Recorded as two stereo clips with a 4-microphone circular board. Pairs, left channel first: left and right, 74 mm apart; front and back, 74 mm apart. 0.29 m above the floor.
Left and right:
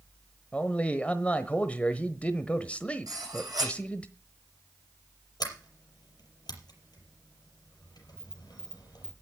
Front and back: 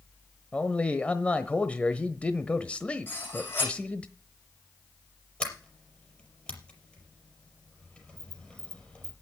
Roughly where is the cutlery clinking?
Ahead right.